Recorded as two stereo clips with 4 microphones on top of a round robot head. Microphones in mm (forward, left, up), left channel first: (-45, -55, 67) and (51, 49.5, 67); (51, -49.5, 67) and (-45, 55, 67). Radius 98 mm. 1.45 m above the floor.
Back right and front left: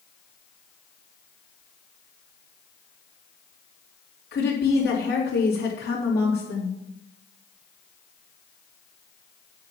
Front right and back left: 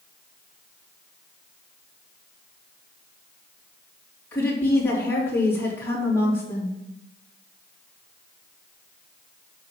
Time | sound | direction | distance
4.3 | a woman speaking | 125° right | 3.5 m